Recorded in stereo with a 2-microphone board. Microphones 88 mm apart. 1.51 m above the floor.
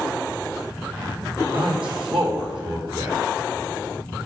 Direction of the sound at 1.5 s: 80° right.